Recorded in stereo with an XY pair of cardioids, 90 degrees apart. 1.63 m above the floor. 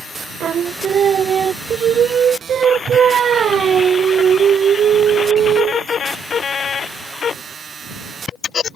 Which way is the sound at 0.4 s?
65° right.